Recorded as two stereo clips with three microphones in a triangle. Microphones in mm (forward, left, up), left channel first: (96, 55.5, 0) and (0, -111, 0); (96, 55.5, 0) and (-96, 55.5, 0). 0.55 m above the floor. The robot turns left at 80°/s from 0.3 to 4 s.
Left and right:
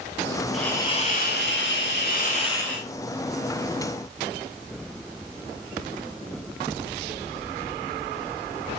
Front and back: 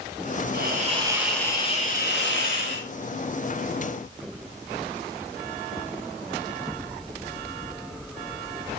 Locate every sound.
0.5 s a hiss: 150° left, 4.5 m; by 2.9 s 35° right, 4.5 m